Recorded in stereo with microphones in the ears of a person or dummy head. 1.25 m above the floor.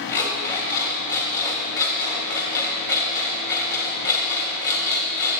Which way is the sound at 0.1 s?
20° left (ahead or behind).